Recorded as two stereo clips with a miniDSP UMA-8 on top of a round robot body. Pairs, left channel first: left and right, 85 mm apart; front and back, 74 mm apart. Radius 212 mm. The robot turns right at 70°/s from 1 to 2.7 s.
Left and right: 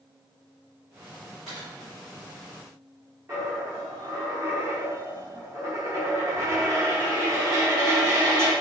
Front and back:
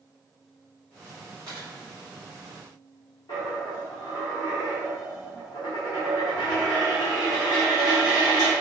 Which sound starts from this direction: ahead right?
A dropped coin, at 3.3 s.